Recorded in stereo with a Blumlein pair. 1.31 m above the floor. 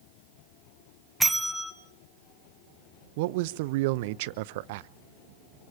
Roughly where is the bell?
Ahead.